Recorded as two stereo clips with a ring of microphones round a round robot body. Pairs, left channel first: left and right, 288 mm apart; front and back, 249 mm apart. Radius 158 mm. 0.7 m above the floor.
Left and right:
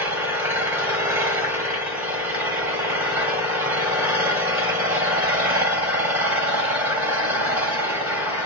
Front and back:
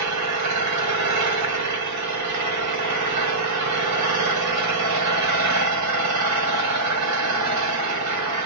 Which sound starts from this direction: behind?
An engine running, at 0.0 s.